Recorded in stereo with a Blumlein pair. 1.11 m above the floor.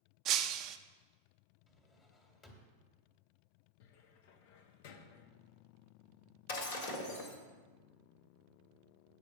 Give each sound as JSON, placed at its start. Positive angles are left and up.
{"t": 0.2, "sound": "breaking glass", "azimuth_deg": -35, "distance_m": 0.5}
{"t": 1.7, "sound": "a drawer", "azimuth_deg": 20, "distance_m": 1.7}
{"t": 3.8, "sound": "a cupboard door", "azimuth_deg": 50, "distance_m": 0.8}
{"t": 6.5, "sound": "breaking glass", "azimuth_deg": 55, "distance_m": 1.6}